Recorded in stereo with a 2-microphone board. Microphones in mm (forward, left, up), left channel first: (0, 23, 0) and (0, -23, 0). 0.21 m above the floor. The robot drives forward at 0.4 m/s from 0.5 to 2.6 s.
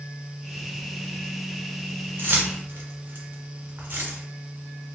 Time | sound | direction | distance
2.2 | keys jangling | 50° right (ahead or behind) | 1.1 m